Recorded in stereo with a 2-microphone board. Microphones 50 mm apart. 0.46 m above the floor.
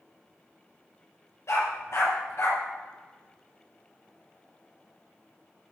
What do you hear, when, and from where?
1.5 s a dog barking: 60° left (ahead or behind), 4 m